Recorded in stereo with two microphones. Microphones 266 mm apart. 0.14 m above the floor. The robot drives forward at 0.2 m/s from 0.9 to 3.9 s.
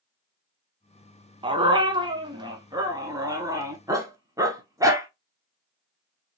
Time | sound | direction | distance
1.4 | a dog barking | 20° right (ahead or behind) | 0.6 m